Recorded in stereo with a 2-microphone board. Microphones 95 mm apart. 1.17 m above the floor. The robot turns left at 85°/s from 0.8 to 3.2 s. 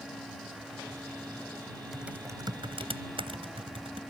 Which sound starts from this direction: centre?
Typing on a keyboard, at 1.9 s.